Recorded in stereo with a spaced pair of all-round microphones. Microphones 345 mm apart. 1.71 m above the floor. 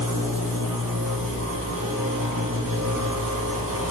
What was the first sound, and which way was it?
A machine running, 65° right (ahead or behind).